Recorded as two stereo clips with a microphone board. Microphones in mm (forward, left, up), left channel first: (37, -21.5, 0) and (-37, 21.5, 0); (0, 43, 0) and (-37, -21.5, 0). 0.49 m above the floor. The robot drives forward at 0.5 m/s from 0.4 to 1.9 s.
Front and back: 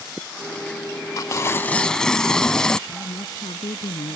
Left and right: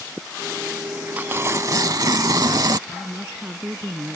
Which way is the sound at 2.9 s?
45° right.